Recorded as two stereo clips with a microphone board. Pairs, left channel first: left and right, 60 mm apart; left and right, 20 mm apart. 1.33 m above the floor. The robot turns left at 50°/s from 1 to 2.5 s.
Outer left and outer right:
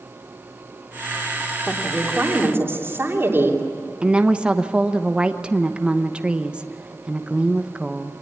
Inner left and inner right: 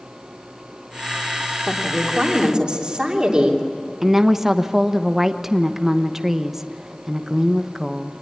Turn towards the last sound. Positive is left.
turn(degrees=-15)  # may be behind; listen again after turning